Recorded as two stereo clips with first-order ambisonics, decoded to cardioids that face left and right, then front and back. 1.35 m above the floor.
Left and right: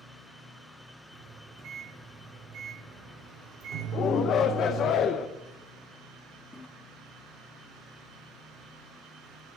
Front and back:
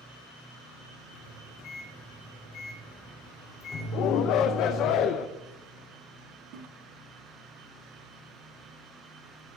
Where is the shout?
35° left, 0.5 m.